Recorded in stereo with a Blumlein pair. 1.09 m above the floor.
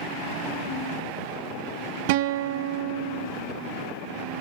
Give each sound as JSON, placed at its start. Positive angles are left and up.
{"t": 2.1, "sound": "a guitar", "azimuth_deg": -50, "distance_m": 0.9}